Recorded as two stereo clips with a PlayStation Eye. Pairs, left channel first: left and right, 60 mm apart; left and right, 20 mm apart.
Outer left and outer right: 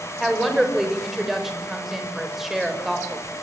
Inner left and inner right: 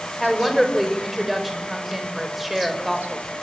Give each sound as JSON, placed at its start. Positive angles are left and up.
{"t": 0.2, "sound": "a woman speaking", "side_deg": -5, "distance_m": 5.5}